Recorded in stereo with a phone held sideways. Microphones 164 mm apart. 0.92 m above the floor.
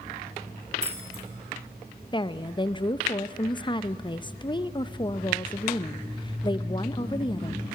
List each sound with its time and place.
0.8 s keys jangling: 45° right (ahead or behind), 2.5 m
2.1 s a woman speaking: 30° left (ahead or behind), 0.5 m